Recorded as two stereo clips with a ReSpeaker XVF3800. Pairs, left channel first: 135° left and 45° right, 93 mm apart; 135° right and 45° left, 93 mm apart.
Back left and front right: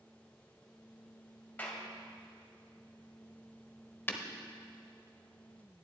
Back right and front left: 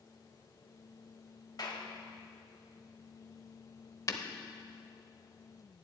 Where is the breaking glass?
165° right, 0.8 m.